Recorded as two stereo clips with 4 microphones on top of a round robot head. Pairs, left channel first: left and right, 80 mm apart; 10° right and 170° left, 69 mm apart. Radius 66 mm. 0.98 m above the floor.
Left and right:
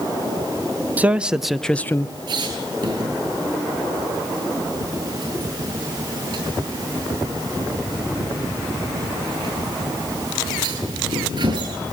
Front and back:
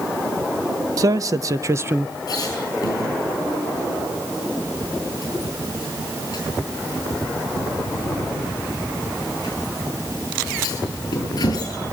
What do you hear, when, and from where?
1.0 s a man speaking: 160° right, 1.4 m; by 2.1 s 115° left, 0.9 m
2.3 s a squeak: 50° right, 9 m